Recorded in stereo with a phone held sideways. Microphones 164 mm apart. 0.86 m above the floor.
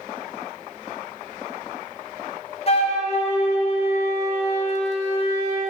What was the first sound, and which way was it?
A flute, 40° left (ahead or behind).